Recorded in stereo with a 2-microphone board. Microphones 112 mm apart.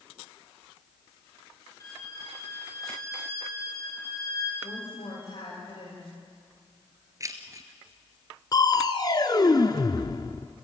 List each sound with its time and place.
1.8 s a violin: 30° left (ahead or behind), 7 m
4.6 s a woman speaking: 50° left (ahead or behind), 9 m
7.2 s keys jangling: 30° right (ahead or behind), 1.6 m
8.5 s crushing: 40° left (ahead or behind), 1.1 m